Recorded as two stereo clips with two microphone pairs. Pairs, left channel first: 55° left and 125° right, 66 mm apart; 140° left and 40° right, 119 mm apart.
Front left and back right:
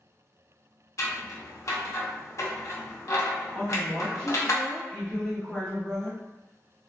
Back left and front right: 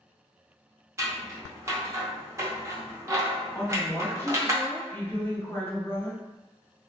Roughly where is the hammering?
I don't hear hammering.